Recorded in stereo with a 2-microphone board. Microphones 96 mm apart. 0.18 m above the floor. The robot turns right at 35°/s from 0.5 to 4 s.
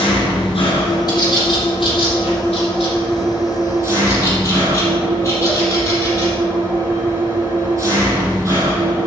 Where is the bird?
45° left (ahead or behind), 5 m; by 6.3 s 30° left (ahead or behind), 5 m.